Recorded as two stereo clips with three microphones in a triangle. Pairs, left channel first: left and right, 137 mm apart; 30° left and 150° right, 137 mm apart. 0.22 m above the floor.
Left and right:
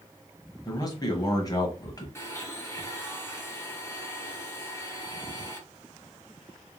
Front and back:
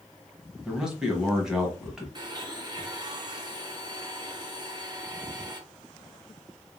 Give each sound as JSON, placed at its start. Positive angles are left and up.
{"t": 0.7, "sound": "a man speaking", "azimuth_deg": 130, "distance_m": 1.4}
{"t": 2.1, "sound": "a blender", "azimuth_deg": 160, "distance_m": 1.6}